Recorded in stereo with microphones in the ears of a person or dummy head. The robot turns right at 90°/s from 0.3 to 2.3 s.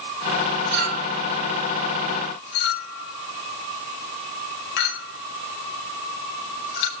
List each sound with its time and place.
0.7 s a clink: 65° right (ahead or behind), 6 m; by 6.9 s 75° left (ahead or behind), 6 m